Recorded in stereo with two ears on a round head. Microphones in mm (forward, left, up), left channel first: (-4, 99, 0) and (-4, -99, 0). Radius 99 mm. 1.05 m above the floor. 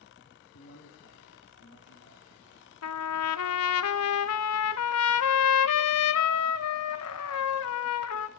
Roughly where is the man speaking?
Left.